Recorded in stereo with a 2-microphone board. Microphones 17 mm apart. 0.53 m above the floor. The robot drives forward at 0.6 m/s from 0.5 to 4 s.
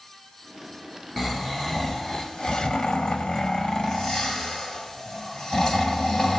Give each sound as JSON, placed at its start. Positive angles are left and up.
{"t": 1.2, "sound": "snoring", "side_deg": 20, "distance_m": 1.2}